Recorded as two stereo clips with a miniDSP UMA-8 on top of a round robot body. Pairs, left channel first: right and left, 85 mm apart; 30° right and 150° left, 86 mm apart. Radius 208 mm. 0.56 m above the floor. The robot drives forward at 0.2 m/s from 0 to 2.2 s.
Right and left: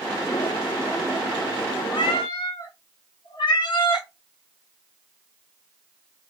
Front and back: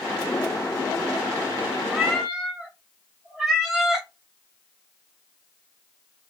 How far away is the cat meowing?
About 0.8 m.